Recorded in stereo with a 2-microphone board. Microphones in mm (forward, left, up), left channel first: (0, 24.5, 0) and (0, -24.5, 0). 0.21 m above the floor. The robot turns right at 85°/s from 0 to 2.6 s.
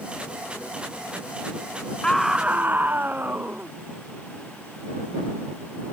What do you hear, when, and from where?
2.0 s a scream: 165° left; by 3.7 s 145° right